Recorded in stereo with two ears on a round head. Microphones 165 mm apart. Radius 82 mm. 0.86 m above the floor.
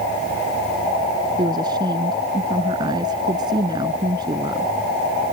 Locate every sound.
1.4 s a woman speaking: 25° right (ahead or behind)